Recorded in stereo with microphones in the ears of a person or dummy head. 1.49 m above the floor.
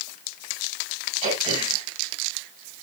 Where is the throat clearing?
30° right (ahead or behind), 3.5 m.